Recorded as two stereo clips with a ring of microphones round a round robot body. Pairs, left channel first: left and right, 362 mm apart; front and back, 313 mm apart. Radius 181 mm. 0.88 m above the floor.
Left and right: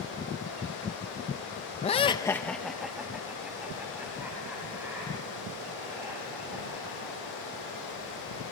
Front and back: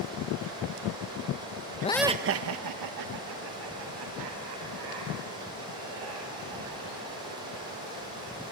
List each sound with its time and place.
1.8 s laughter: 35° left, 0.6 m; by 8.5 s 175° right, 9 m